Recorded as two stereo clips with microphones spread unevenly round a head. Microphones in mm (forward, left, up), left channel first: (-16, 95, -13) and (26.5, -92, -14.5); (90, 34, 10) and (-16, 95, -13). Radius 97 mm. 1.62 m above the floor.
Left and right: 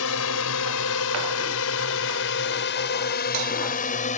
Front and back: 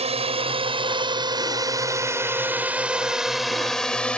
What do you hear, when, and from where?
0.0 s a drone: 115° left; by 4.2 s 50° left